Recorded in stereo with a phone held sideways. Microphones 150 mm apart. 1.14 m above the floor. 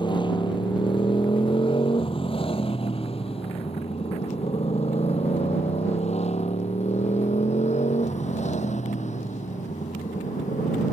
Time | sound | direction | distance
0.0 | a motorcycle | 35° left (ahead or behind) | ?